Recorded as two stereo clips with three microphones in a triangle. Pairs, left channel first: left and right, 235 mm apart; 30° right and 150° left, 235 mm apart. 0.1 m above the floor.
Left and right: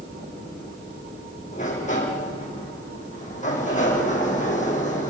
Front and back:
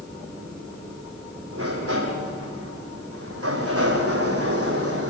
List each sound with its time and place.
1.5 s a sliding door: 145° left, 4.5 m